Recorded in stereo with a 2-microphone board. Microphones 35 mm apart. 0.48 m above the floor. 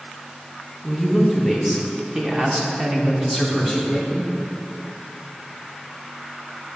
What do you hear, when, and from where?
0.8 s a woman speaking: 5° right (ahead or behind), 1.4 m; by 4.3 s 15° right (ahead or behind), 1.2 m